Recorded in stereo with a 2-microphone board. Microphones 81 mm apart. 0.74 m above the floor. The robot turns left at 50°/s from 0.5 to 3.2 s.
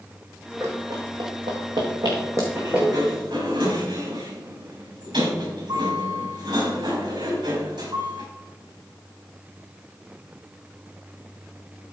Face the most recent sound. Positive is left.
turn(degrees=-85)